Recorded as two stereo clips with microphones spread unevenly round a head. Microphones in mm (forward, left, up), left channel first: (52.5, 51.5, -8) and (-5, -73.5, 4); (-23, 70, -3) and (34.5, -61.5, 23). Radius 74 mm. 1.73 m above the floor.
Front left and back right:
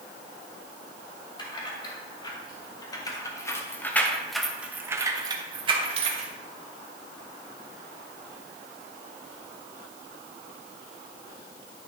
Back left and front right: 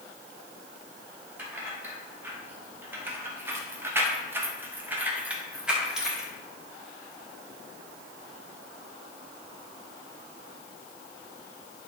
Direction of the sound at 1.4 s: 10° left.